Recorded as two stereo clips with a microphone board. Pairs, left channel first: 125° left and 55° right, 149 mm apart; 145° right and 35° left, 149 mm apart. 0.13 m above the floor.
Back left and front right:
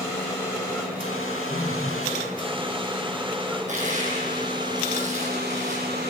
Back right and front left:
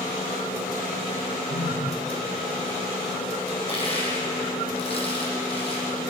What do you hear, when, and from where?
1.5 s a phone buzzing: 175° right, 5.5 m
3.7 s crushing: 95° right, 5 m